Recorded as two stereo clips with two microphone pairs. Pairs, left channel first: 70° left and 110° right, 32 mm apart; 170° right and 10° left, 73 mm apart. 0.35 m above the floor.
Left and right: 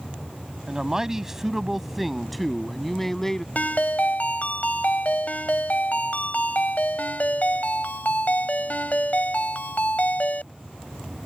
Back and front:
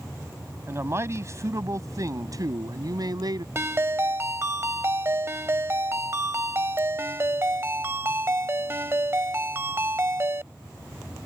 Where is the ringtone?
55° left.